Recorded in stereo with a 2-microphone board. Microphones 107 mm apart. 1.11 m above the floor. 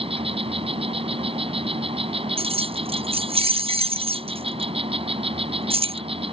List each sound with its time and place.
0.0 s an insect: 55° right (ahead or behind)
2.4 s keys jangling: 55° right (ahead or behind)